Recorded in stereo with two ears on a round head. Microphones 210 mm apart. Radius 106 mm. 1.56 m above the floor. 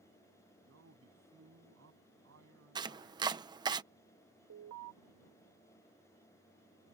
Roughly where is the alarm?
Right.